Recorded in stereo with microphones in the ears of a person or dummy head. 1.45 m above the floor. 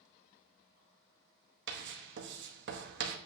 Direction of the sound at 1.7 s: 55° right (ahead or behind).